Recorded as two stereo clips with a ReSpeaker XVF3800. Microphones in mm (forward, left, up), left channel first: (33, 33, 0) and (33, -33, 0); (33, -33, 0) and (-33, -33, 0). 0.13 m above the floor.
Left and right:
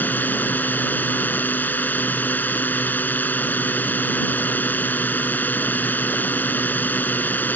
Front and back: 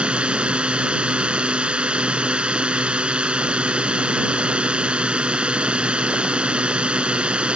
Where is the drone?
120° left.